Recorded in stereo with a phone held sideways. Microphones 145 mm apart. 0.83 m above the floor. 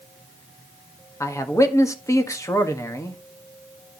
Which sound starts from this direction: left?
A man speaking, at 1.2 s.